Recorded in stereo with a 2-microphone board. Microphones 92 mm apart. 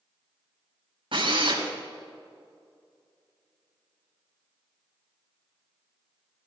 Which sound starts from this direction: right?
A drill, at 1.1 s.